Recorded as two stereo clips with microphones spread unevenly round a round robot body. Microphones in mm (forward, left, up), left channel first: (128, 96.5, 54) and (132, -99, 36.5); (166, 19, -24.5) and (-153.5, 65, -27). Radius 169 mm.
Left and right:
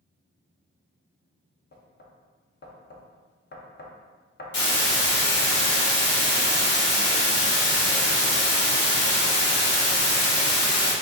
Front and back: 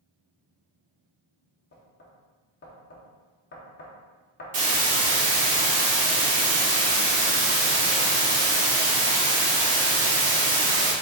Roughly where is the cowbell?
I don't hear a cowbell.